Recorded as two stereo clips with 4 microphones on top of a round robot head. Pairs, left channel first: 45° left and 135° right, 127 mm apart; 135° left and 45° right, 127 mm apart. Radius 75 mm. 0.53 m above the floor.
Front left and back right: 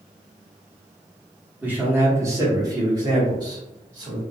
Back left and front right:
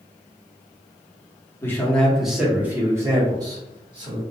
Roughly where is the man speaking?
Behind.